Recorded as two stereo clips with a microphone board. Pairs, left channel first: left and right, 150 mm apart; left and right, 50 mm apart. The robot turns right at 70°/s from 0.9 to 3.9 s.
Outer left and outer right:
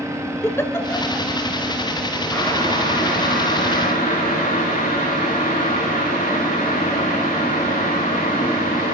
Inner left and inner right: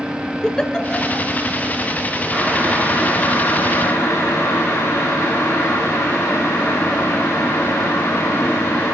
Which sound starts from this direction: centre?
A giggle, at 0.4 s.